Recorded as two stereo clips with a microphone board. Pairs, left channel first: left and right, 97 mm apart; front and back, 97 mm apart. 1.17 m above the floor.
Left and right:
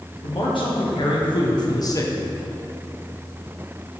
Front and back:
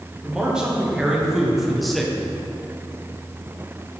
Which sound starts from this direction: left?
A man speaking, at 0.2 s.